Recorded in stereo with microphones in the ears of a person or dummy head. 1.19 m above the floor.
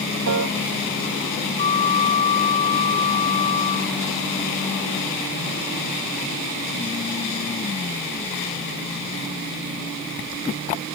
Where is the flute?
40° left (ahead or behind).